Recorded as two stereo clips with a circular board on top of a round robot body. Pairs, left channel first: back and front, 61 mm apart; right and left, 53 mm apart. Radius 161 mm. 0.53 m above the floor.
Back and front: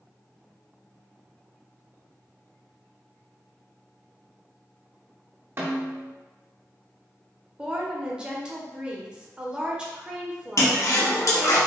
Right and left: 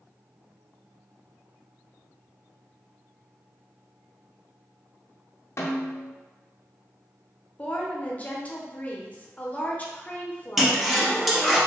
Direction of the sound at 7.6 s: 60° right.